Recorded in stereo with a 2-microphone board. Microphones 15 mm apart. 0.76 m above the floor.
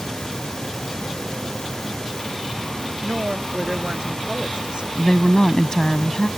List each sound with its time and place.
3.0 s a woman speaking: 55° right (ahead or behind)
5.0 s a woman speaking: 45° left (ahead or behind)